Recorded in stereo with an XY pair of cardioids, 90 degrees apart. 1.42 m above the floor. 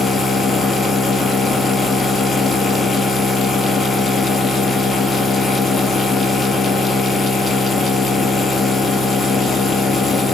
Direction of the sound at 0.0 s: 40° left.